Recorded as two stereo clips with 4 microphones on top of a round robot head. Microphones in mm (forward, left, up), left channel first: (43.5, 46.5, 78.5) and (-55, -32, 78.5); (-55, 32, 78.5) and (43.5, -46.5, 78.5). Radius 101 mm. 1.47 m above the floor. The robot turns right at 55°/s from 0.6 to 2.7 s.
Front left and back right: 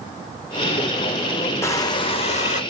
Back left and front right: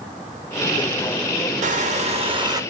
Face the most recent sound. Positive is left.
turn(degrees=30)